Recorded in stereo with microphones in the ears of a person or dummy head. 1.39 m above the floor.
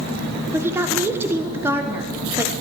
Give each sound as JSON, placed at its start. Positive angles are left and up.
{"t": 0.5, "sound": "a woman speaking", "side_deg": -15, "distance_m": 1.2}